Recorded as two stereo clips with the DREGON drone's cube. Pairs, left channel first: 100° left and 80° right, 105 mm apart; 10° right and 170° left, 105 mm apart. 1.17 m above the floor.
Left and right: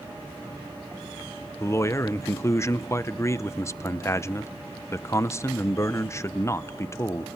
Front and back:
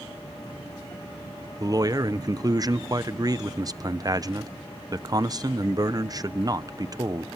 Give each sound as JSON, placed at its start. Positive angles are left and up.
{"t": 1.6, "sound": "a man speaking", "azimuth_deg": 140, "distance_m": 0.7}